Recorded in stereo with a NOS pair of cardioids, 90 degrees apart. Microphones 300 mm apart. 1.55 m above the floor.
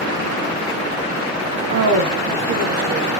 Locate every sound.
1.7 s a woman speaking: 65° right, 0.8 m; by 3.1 s 60° right, 2.5 m